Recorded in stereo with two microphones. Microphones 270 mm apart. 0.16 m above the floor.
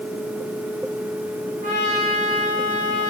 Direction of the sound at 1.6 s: 30° right (ahead or behind).